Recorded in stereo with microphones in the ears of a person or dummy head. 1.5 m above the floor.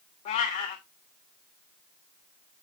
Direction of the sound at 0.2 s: 30° left (ahead or behind).